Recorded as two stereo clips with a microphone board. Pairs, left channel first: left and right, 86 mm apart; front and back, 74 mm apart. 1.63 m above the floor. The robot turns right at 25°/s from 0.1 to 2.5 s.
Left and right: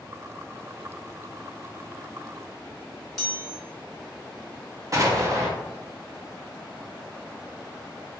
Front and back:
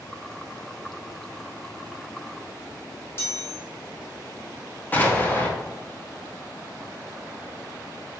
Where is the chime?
5° left, 1.5 m.